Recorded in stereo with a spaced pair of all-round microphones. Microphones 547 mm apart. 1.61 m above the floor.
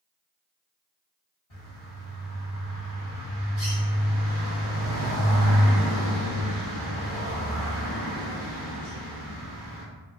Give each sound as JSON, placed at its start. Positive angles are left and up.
{"t": 1.5, "sound": "a bird", "side_deg": 60, "distance_m": 1.4}